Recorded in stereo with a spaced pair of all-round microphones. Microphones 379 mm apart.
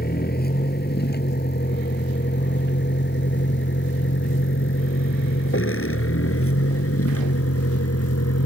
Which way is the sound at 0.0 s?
25° left (ahead or behind).